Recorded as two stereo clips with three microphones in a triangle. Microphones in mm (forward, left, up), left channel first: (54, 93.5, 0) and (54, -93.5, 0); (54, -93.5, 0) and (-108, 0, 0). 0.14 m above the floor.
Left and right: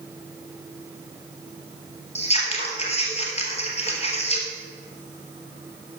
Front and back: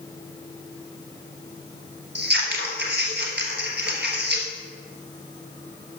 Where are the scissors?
140° left, 2 m.